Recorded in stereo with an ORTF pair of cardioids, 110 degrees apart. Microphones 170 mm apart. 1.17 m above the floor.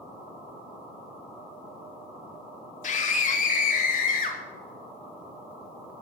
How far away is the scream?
About 2.5 m.